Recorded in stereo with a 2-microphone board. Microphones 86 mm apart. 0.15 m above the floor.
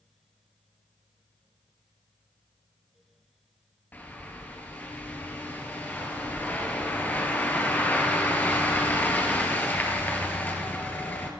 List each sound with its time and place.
3.9 s a bird: 20° left (ahead or behind), 1.5 m